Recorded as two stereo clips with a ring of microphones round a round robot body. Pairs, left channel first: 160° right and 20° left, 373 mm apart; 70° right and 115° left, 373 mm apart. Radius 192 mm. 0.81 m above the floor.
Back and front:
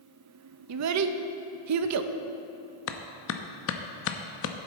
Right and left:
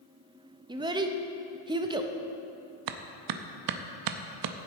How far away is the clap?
About 0.7 m.